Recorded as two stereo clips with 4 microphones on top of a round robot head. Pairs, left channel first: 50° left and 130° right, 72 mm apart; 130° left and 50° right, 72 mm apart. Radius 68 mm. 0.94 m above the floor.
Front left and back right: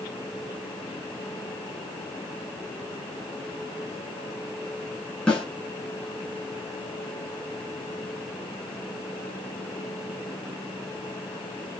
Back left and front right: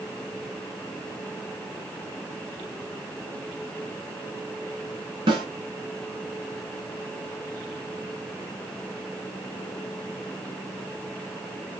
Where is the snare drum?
30° right, 3 m.